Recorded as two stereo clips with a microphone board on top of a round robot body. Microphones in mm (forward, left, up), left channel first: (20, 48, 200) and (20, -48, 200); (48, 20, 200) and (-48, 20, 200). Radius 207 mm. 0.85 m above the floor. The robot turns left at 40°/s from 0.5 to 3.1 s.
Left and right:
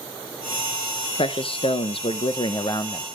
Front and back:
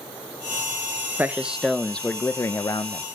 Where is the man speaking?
110° left, 1.0 m; by 3.0 s 35° left, 1.0 m.